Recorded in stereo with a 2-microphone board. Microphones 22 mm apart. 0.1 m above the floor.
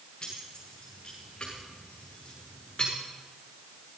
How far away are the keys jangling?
About 7 m.